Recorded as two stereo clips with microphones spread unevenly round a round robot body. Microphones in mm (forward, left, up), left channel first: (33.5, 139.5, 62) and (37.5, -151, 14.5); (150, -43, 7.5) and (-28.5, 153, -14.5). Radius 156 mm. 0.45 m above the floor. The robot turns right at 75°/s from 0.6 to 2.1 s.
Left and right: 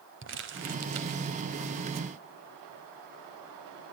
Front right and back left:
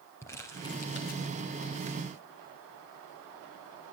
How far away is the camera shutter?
I don't hear a camera shutter.